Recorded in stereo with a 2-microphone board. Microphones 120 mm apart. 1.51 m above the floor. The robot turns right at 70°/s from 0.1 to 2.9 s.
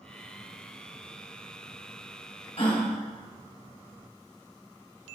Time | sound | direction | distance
2.6 | a gasp | 55° left (ahead or behind) | 2 m